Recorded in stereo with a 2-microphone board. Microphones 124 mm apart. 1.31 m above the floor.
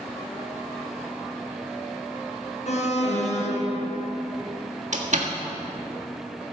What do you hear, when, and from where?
2.7 s an alarm: 60° left (ahead or behind), 1.6 m
4.9 s a door slam: 65° right (ahead or behind), 1.6 m